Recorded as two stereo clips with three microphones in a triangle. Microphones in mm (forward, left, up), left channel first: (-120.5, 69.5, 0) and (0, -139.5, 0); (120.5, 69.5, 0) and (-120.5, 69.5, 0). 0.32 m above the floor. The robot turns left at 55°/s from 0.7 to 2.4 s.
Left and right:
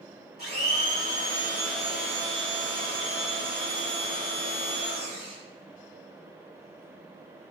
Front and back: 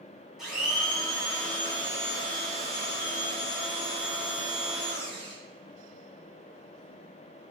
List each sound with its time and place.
0.4 s a blender: 90° left, 1.2 m; by 5.3 s straight ahead, 1.2 m